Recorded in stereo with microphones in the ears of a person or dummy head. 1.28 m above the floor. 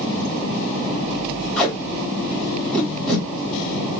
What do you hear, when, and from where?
1.6 s tape being pulled: centre (ahead or behind), 2 m